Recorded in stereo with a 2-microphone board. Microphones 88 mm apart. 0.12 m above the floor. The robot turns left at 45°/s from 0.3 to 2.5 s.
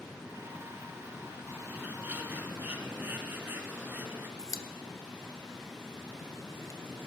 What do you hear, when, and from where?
1.7 s a bird: 20° right (ahead or behind), 1.2 m
4.4 s a pop: 40° left (ahead or behind), 0.8 m